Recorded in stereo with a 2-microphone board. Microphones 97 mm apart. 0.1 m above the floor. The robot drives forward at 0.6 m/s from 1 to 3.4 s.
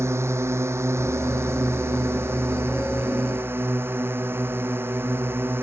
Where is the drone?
25° right (ahead or behind).